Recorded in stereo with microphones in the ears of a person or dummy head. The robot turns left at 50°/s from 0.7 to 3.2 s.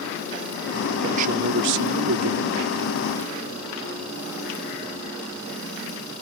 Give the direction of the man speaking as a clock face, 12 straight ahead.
1 o'clock.